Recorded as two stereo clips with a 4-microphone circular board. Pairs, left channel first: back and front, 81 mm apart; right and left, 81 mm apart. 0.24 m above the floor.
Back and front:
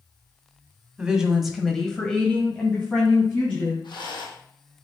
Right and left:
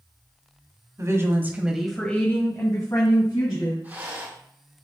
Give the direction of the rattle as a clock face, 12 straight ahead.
7 o'clock.